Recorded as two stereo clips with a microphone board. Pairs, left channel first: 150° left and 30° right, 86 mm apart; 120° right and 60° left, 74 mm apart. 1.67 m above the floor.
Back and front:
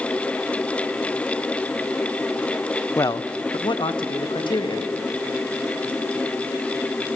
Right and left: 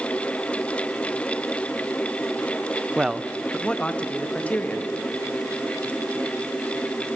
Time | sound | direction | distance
3.0 | a man speaking | 125° left | 0.6 m